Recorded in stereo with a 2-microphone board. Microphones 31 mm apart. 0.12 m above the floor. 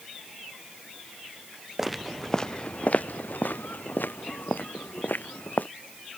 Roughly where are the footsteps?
Centre.